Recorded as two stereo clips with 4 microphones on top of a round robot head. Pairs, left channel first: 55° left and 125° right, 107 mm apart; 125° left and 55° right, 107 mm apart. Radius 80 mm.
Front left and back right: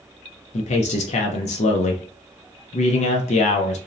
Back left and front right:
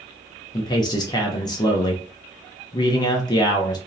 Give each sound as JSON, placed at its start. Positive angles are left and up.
{"t": 0.5, "sound": "a man speaking", "azimuth_deg": 70, "distance_m": 0.5}